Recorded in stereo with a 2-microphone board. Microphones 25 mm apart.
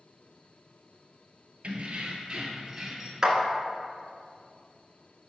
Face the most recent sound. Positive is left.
turn(degrees=-25)  # may be behind; listen again after turning